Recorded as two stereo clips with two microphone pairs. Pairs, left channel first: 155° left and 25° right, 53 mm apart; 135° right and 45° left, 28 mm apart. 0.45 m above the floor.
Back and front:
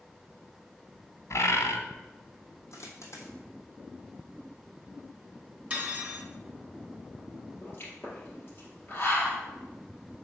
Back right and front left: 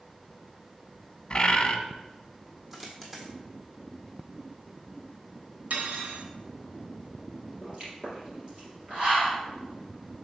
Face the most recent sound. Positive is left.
turn(degrees=105)